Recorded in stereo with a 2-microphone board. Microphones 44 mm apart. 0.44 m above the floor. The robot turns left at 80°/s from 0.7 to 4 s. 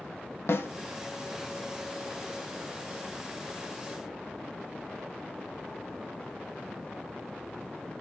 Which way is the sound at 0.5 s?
65° left (ahead or behind).